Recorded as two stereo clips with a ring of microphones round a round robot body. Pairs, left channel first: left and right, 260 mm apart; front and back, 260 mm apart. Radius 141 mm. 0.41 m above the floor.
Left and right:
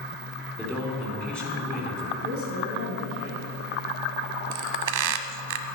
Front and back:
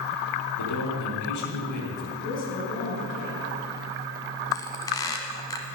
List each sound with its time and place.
0.6 s a man speaking: 5° left, 4.5 m
2.2 s a woman speaking: 60° left, 4.5 m
4.5 s a squeak: 80° right, 0.9 m